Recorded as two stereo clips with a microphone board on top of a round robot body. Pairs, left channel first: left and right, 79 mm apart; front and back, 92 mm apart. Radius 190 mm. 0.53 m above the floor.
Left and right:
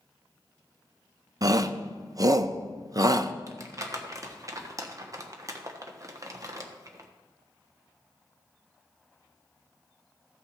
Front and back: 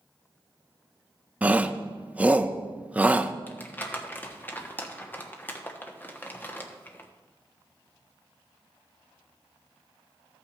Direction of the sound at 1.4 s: 110° right.